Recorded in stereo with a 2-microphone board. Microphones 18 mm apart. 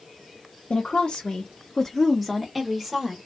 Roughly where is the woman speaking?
Left.